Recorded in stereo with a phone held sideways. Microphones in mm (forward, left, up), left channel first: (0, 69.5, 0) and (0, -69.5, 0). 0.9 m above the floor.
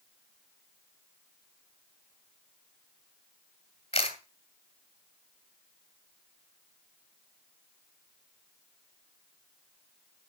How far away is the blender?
No blender in this recording.